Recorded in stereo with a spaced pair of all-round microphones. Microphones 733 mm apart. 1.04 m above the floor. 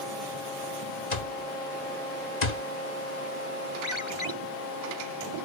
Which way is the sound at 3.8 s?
40° left (ahead or behind).